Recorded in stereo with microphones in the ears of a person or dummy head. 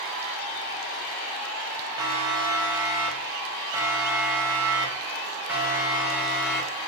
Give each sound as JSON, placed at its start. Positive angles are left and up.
{"t": 2.0, "sound": "a siren", "side_deg": -20, "distance_m": 8.0}